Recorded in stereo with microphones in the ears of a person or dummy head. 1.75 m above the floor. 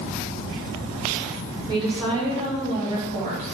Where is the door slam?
No door slam in this recording.